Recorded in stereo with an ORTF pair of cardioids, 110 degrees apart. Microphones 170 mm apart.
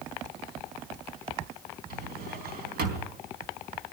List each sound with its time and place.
1.9 s a drawer: 70° right, 3.5 m